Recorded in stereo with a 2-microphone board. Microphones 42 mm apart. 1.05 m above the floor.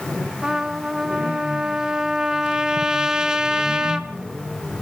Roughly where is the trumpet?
Centre.